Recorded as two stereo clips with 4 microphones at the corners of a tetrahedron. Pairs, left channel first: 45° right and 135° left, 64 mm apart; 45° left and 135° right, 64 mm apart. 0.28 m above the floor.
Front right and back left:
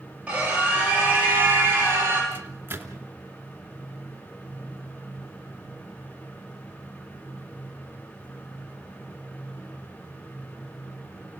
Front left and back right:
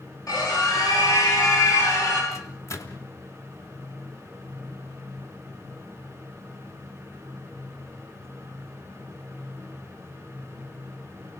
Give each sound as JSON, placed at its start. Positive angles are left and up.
{"t": 0.3, "sound": "a scream", "azimuth_deg": 65, "distance_m": 6.5}
{"t": 2.3, "sound": "a microwave", "azimuth_deg": 80, "distance_m": 2.5}